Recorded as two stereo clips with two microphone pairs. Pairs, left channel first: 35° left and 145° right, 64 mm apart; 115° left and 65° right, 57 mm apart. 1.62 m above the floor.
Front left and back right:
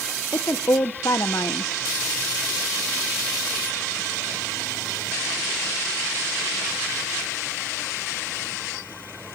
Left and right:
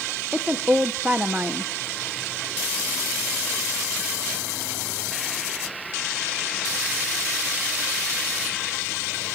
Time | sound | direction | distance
0.3 | a woman speaking | straight ahead | 1.3 m